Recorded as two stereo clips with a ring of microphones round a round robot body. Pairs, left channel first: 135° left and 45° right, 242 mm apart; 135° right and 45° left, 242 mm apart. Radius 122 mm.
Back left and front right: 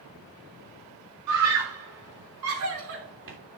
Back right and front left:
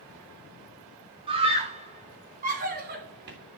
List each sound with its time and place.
1.3 s a scream: 25° right, 3.5 m; by 3.4 s 5° right, 3 m